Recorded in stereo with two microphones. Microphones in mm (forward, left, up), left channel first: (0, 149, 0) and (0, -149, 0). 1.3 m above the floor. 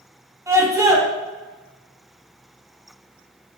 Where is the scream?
10° right (ahead or behind), 2.5 m.